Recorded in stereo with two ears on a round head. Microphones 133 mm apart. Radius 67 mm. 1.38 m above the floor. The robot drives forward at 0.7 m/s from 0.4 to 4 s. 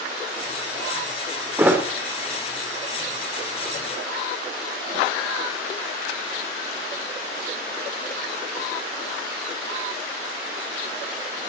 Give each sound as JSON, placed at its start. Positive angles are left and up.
{"t": 1.6, "sound": "a thud", "side_deg": -15, "distance_m": 2.0}